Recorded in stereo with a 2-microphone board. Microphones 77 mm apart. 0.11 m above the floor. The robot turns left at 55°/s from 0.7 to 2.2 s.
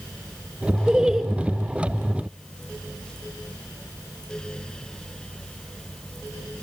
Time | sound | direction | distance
0.9 | laughter | 10° right (ahead or behind) | 1.1 m